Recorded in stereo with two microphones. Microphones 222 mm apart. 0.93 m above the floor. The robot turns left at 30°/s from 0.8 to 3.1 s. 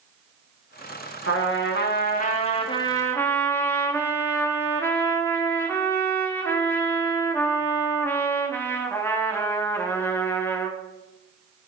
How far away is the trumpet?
About 1.2 m.